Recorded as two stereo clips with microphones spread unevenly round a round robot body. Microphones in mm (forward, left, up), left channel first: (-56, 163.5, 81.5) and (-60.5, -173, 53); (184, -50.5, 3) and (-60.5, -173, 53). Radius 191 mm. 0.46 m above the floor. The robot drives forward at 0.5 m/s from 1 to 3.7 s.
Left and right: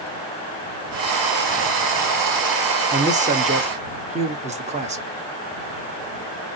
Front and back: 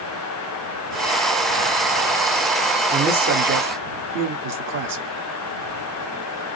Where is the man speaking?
105° right, 1.2 m; by 5.1 s 140° right, 1.3 m.